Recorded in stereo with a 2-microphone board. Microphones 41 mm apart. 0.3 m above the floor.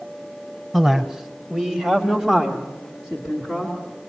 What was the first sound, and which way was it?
A man speaking, 10° right (ahead or behind).